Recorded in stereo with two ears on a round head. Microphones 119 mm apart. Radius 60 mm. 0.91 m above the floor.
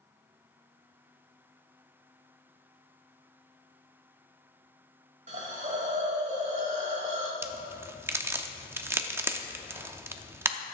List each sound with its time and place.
5.3 s a hiss: 50° right (ahead or behind), 1.4 m
7.4 s a crack: 15° right (ahead or behind), 0.6 m